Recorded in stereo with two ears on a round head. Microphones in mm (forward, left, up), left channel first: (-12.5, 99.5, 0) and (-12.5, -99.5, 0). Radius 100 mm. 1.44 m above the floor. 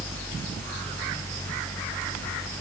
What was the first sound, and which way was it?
Only background noise.